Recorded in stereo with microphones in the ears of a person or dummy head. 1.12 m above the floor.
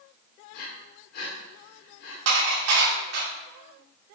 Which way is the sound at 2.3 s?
80° right.